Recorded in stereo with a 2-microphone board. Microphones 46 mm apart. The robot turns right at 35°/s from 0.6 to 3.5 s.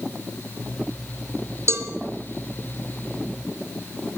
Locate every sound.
1.7 s a cowbell: 70° right (ahead or behind), 1.8 m; by 1.9 s 65° right (ahead or behind), 1.8 m